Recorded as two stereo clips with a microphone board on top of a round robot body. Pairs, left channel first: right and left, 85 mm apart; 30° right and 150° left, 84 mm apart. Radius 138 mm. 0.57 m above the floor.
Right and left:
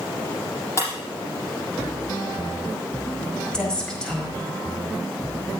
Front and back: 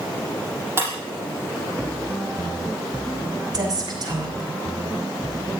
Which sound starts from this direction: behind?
A woman speaking, at 3.5 s.